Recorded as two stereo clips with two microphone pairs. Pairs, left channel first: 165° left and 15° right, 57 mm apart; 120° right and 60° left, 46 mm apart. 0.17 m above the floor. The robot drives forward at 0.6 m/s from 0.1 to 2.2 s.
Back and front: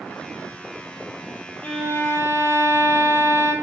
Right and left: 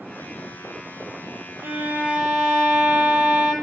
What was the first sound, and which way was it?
A violin, 95° left.